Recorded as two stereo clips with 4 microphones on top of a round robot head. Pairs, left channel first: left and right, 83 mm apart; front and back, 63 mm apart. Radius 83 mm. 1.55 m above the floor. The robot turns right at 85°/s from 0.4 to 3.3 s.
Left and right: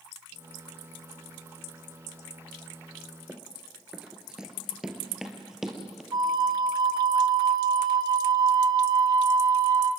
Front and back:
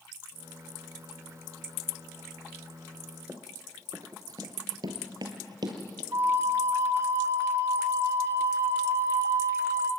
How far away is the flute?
About 1.6 m.